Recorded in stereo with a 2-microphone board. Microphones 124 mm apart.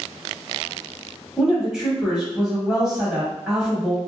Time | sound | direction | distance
1.4 | a woman speaking | 5° right (ahead or behind) | 1.1 m